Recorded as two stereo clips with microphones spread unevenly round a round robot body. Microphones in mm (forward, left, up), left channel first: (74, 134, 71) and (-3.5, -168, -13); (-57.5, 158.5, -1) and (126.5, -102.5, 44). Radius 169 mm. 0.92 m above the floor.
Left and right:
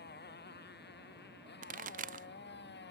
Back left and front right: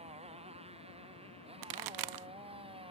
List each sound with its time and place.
0.0 s a motorcycle: 15° left; by 2.9 s 20° left
1.6 s a pop: 35° right